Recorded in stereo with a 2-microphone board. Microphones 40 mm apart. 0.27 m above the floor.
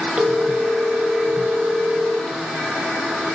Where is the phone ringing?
25° right (ahead or behind), 0.9 m.